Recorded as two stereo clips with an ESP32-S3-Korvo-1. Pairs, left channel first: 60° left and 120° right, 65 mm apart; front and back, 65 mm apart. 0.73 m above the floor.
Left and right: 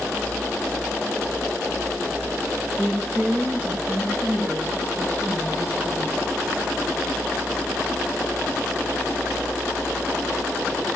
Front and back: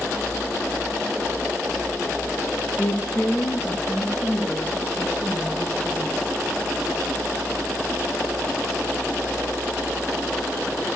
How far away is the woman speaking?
About 9 m.